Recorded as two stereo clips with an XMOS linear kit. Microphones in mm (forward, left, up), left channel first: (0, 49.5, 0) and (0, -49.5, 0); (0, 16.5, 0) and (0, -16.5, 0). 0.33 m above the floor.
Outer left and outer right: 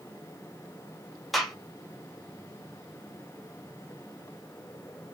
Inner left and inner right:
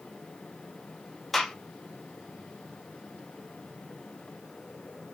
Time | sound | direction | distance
1.3 | a gunshot | centre (ahead or behind) | 1.1 m